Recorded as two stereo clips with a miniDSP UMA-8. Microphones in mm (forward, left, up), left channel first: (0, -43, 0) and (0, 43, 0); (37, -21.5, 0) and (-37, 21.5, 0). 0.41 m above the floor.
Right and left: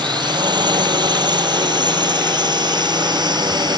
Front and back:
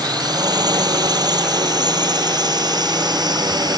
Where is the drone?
115° left; by 3.8 s 120° left.